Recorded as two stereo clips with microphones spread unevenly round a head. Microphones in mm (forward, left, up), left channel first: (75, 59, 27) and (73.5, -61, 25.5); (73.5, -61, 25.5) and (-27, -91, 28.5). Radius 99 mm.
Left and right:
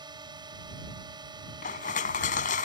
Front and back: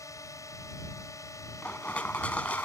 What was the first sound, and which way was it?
A drone, 40° right.